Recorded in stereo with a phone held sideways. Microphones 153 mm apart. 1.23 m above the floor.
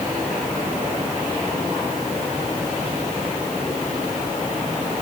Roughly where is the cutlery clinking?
I don't hear cutlery clinking.